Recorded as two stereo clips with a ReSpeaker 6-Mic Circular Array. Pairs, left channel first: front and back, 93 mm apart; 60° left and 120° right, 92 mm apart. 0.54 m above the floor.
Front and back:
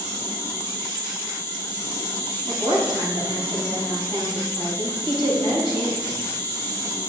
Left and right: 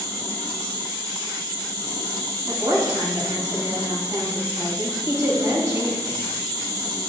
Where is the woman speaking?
170° right, 3.5 m.